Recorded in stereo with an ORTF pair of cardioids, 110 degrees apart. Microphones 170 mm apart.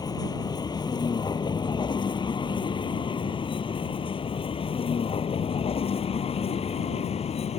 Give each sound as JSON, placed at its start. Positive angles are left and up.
{"t": 0.0, "sound": "a vehicle", "azimuth_deg": 25}